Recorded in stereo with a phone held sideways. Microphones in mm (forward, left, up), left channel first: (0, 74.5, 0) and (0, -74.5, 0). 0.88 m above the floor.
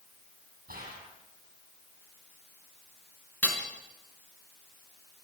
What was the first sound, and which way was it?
A gunshot, 85° right.